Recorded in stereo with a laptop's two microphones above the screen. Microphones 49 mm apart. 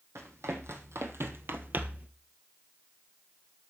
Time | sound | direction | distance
0.1 | running footsteps | 70° right (ahead or behind) | 2.5 m